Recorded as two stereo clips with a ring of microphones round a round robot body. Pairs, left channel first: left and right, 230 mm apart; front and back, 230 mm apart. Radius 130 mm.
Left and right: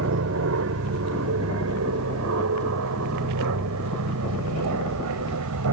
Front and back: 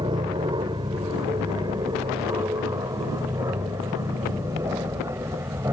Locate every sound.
0.0 s an aircraft: 110° right; by 5.7 s 100° right